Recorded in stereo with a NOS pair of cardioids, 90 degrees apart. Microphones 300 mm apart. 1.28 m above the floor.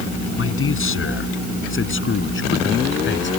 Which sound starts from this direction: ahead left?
A man speaking, at 0.4 s.